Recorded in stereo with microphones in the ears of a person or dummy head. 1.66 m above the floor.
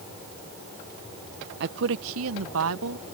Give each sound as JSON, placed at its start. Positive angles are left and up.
{"t": 1.6, "sound": "a woman speaking", "side_deg": -60}